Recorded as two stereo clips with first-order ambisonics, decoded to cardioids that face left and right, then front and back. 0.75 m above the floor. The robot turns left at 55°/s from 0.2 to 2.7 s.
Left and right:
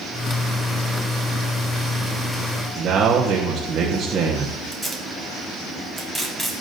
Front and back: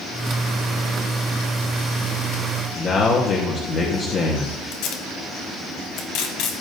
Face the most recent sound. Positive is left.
turn(degrees=10)